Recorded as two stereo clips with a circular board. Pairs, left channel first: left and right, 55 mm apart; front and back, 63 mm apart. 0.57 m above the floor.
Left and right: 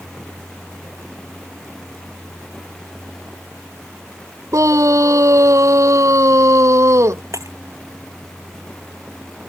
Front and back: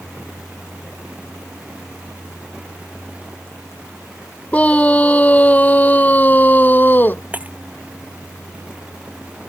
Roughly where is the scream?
Right.